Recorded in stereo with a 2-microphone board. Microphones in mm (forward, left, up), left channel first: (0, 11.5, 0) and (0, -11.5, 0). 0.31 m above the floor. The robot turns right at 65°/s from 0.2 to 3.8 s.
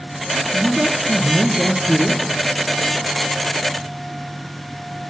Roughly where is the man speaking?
Behind.